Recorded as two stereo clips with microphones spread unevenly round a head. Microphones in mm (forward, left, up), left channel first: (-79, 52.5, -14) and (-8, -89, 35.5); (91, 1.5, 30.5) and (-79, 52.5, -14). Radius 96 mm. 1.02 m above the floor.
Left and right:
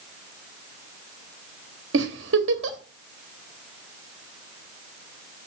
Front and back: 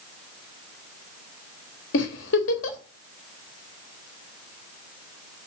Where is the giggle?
45° right, 1.3 m.